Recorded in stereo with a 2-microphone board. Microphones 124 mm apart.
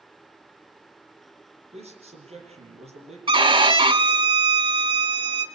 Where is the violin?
40° right (ahead or behind), 0.8 m.